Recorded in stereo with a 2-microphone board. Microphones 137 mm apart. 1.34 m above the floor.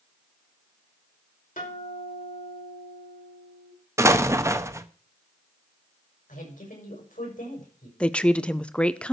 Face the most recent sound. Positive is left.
turn(degrees=10)  # may be behind; listen again after turning